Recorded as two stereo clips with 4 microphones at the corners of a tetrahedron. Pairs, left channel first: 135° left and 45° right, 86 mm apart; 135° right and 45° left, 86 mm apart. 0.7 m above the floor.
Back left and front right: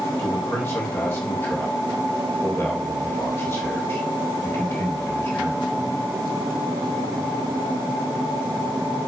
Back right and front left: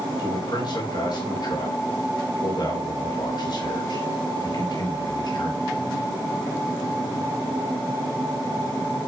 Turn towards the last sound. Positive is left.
turn(degrees=-165)